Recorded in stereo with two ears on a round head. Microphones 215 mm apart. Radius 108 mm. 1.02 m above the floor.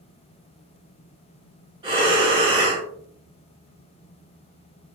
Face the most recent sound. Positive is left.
turn(degrees=-20)  # may be behind; listen again after turning